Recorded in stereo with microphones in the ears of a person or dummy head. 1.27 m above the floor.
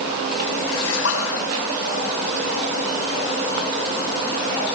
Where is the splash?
85° left, 6.5 m.